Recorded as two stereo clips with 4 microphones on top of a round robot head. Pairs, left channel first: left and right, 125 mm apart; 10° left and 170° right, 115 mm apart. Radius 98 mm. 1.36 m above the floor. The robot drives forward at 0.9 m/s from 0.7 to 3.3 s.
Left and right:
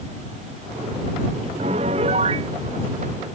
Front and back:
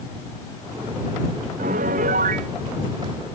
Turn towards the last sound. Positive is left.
turn(degrees=-145)